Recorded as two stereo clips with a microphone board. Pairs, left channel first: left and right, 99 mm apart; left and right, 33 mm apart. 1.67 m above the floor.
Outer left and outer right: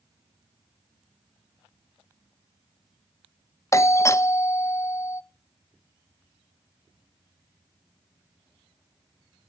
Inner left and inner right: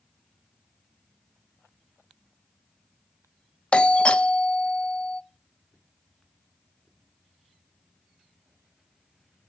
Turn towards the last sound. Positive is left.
turn(degrees=30)  # may be behind; listen again after turning